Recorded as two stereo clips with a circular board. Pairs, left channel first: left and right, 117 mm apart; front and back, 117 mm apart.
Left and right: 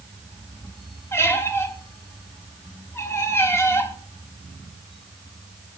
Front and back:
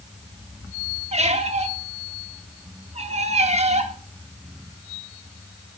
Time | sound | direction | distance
1.1 | a squeak | 160° left | 0.7 m